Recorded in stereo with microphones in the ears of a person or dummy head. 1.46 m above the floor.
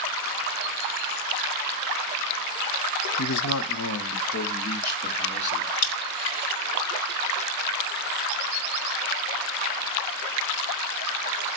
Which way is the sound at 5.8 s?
45° left (ahead or behind).